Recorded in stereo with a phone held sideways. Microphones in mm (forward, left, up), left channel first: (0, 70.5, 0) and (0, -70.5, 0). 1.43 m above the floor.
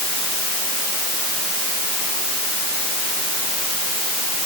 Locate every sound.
Only background noise.